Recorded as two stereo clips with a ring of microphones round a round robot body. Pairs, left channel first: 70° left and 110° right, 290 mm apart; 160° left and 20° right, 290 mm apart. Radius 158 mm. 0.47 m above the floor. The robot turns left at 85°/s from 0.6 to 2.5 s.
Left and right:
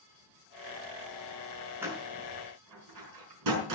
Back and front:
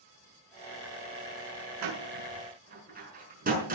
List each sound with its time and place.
1.8 s a door slam: 30° right, 6 m; by 3.8 s 85° right, 6 m